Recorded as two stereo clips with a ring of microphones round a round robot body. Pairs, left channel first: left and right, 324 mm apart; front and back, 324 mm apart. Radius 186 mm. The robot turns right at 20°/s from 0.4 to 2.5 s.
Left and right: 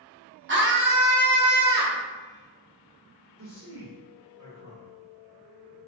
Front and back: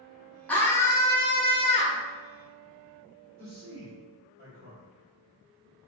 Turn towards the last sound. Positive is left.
turn(degrees=-140)